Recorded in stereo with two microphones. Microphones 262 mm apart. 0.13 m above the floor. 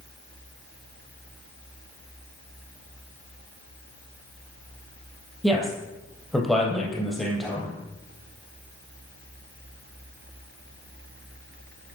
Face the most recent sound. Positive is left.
turn(degrees=0)  # may be behind; listen again after turning